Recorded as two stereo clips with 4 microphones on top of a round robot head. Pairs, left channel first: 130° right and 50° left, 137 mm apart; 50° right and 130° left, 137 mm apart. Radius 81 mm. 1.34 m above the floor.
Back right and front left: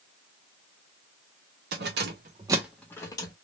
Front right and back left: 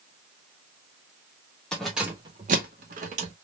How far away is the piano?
I don't hear a piano.